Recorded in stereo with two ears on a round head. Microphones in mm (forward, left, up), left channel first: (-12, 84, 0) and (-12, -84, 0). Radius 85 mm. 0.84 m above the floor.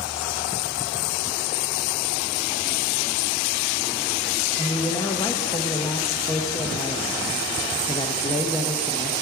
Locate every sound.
4.6 s a man speaking: 20° left (ahead or behind), 0.7 m